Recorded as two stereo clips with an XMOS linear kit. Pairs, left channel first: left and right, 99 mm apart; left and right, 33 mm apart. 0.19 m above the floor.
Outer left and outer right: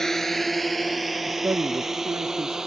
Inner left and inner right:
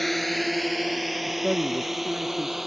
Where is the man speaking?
30° right (ahead or behind).